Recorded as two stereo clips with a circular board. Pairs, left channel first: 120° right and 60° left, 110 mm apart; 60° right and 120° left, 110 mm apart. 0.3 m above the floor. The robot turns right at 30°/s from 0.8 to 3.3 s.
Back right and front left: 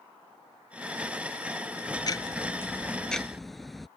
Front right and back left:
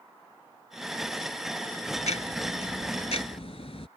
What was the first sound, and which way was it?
Ticking, 70° right.